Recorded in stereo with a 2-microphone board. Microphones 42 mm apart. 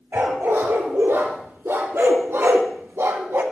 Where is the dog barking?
75° right (ahead or behind), 3 m; by 3.4 s 80° right, 1.3 m.